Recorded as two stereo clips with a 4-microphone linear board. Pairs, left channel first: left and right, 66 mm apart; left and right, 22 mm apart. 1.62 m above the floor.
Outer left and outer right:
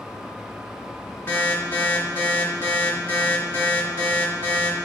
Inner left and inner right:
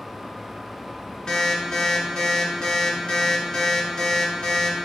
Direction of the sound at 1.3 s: 30° left (ahead or behind).